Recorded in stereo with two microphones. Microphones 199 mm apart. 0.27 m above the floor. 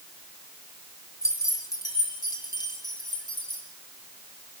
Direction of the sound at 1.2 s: 15° left (ahead or behind).